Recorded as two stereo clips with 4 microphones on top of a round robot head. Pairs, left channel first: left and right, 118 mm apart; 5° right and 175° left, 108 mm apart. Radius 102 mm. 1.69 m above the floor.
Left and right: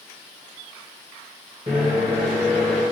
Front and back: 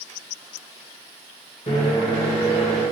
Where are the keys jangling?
I don't hear keys jangling.